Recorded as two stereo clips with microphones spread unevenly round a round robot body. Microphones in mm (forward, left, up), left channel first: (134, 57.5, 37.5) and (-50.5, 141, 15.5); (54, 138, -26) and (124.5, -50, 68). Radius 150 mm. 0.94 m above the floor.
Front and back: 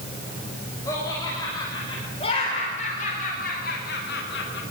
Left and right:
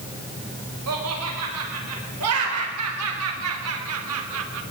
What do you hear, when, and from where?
0.9 s laughter: 105° right, 6 m; by 4.6 s 70° right, 3.5 m